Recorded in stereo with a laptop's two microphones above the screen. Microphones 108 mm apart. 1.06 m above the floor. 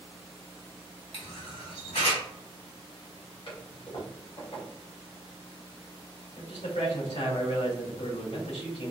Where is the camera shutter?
65° left (ahead or behind), 1.7 m.